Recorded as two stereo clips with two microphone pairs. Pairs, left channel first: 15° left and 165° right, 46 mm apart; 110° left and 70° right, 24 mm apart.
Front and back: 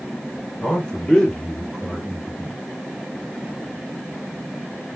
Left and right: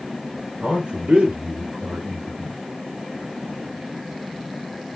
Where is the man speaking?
50° right, 3.5 m; by 2.6 s 75° right, 3.5 m.